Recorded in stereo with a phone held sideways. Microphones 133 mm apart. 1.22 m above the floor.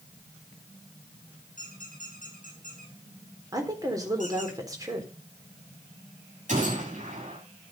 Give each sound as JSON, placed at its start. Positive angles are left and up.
{"t": 1.6, "sound": "a squeak", "side_deg": -80, "distance_m": 7.5}
{"t": 3.5, "sound": "a woman speaking", "side_deg": -25, "distance_m": 4.0}
{"t": 6.5, "sound": "a gunshot", "side_deg": -70, "distance_m": 9.5}